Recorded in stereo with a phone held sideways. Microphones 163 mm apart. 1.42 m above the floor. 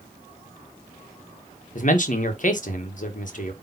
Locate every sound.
1.8 s a man speaking: 50° left (ahead or behind), 1.6 m